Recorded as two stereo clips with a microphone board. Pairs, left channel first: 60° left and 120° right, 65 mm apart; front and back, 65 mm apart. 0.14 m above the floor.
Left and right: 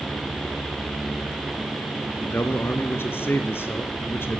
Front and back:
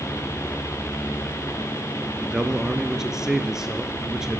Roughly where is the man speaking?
Left.